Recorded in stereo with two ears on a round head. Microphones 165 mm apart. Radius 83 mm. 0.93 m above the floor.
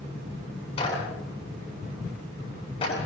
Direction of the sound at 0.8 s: 35° left (ahead or behind).